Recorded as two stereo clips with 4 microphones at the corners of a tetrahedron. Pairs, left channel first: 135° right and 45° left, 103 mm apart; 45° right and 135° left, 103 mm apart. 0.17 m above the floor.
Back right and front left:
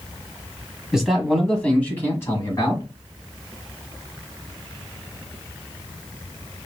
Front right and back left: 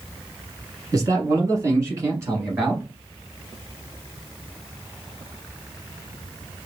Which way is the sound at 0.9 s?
125° left.